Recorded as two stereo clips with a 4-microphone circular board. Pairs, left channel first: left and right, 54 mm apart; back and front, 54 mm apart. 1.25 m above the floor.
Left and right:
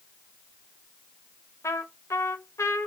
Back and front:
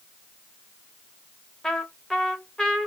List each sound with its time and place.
1.6 s a trumpet: 100° left, 0.7 m